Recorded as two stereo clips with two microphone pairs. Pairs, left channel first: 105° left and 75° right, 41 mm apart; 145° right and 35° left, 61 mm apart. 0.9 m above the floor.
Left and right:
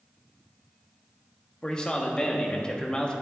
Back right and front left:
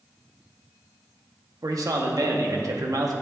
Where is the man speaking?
35° left, 1.0 m.